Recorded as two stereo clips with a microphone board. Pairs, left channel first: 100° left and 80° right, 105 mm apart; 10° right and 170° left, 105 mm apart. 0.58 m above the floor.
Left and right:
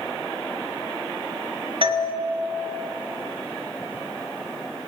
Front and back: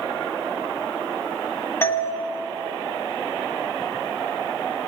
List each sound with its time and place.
1.8 s a doorbell: 75° right, 2.0 m